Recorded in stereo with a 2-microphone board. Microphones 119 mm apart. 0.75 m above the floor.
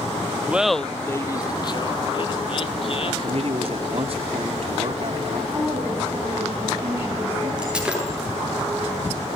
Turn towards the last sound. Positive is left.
turn(degrees=-10)  # may be behind; listen again after turning